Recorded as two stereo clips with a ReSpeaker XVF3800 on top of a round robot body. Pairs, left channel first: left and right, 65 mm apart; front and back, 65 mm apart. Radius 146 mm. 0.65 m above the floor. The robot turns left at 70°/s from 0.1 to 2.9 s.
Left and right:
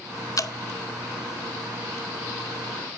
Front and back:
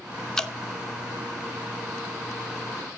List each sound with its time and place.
0.4 s dripping: 80° left, 1.5 m; by 0.5 s 70° left, 1.5 m